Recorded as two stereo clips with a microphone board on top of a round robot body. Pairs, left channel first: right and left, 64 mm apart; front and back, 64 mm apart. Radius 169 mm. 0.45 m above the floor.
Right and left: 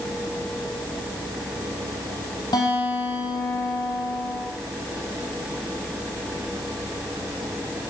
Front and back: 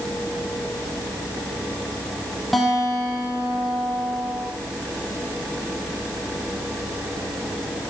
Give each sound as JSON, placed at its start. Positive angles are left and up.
{"t": 2.5, "sound": "a guitar", "azimuth_deg": -90, "distance_m": 10.0}